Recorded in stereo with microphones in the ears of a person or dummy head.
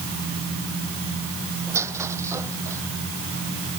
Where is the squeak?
15° right (ahead or behind).